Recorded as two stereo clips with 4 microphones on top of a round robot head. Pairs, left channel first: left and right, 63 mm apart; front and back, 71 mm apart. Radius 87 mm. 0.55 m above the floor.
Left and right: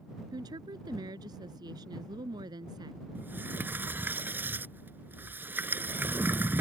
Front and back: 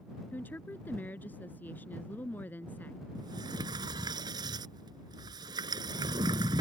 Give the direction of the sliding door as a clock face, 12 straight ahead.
5 o'clock.